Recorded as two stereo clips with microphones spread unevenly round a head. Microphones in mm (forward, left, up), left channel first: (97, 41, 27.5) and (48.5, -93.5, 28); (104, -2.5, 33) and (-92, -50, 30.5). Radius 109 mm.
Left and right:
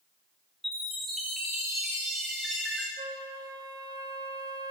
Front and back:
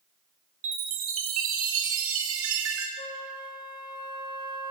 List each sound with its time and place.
0.6 s a chime: 160° left, 2.5 m
3.0 s a flute: 50° right, 2 m